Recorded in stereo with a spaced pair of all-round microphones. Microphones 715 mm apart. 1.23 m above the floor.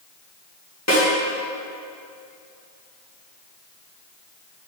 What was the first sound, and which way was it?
A snare drum, 20° left (ahead or behind).